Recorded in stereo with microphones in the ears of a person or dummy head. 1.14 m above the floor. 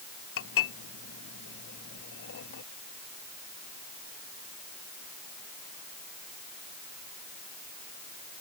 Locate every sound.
0.4 s dishes clattering: 90° left